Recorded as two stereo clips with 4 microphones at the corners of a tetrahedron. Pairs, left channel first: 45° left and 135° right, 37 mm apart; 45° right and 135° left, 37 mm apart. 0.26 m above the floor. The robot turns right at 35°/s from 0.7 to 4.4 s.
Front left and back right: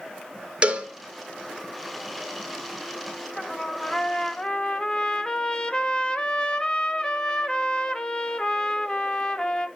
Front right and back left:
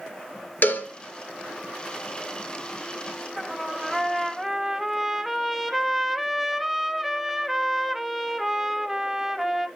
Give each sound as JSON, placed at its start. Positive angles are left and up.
{"t": 0.6, "sound": "a cowbell", "azimuth_deg": -80, "distance_m": 0.9}
{"t": 3.4, "sound": "a trumpet", "azimuth_deg": 25, "distance_m": 0.5}